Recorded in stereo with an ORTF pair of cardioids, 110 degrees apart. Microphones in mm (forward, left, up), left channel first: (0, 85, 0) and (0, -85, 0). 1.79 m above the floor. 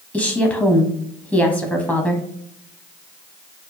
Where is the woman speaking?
Straight ahead, 0.8 m.